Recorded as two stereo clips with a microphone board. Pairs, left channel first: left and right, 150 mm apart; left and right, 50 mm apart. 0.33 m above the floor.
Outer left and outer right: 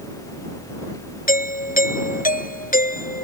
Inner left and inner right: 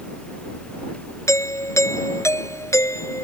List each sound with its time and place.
1.3 s a doorbell: 70° left (ahead or behind)